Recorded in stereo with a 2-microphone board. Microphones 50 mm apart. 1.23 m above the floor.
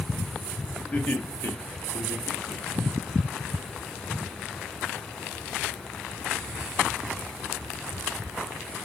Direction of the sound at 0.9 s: 35° left (ahead or behind).